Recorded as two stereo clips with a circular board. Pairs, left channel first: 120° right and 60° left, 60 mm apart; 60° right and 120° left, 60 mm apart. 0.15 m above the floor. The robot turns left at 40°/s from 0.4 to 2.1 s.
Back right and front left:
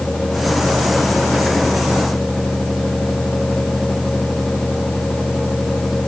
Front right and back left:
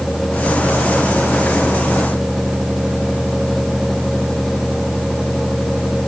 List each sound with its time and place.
Only background noise.